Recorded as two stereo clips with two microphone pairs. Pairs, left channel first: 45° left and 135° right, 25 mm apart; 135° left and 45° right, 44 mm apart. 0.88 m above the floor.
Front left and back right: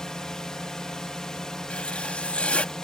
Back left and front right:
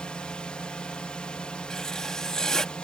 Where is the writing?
60° left.